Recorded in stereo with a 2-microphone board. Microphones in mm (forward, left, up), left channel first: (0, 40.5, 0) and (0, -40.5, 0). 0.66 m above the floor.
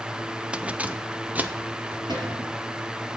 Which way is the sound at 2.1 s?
60° right (ahead or behind).